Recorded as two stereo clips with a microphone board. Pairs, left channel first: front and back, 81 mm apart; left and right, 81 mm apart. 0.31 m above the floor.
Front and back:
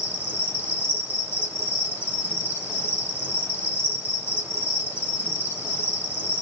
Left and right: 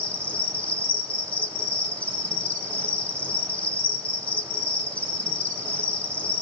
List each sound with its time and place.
0.0 s an insect: 40° left, 1.2 m